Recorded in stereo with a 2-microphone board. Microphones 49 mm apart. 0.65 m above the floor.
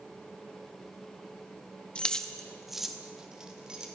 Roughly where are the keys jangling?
Left.